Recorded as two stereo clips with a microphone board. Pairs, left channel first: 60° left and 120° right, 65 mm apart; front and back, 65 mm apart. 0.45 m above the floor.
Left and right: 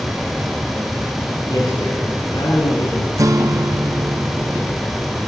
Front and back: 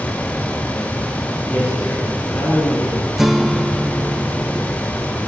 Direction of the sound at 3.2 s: 95° right.